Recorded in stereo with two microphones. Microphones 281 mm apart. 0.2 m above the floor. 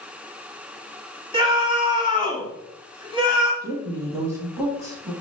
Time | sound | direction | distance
1.3 | a scream | 20° right (ahead or behind) | 1.3 m
3.6 | a woman speaking | 10° right (ahead or behind) | 1.0 m